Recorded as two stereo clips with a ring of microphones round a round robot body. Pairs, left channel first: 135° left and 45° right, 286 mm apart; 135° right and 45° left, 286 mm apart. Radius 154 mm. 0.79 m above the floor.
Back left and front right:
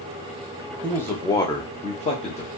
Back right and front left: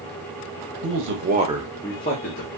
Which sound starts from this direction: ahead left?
A man speaking, at 0.8 s.